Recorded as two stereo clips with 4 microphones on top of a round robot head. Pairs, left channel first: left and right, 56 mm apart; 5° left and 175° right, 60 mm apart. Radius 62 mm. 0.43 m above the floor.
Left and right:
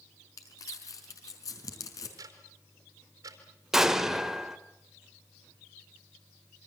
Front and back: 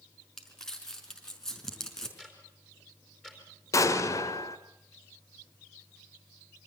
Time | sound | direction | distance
0.4 | crumpling | 85° left | 5 m
2.2 | ticking | 80° right | 4 m
3.7 | an explosion | 10° right | 1.9 m